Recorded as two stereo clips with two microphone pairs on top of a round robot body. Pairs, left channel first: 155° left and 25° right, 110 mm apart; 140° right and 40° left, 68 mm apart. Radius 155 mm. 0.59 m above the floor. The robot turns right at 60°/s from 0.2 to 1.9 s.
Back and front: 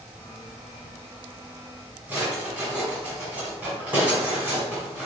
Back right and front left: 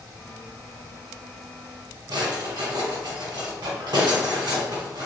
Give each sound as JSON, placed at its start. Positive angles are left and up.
{"t": 2.1, "sound": "a drawer", "azimuth_deg": 50, "distance_m": 1.5}